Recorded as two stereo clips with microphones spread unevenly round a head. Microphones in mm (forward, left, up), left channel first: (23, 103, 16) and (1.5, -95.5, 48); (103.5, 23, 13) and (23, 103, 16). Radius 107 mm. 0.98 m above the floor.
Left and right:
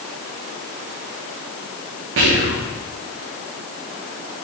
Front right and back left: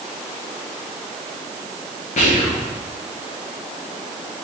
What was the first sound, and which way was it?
Whispering, 70° right.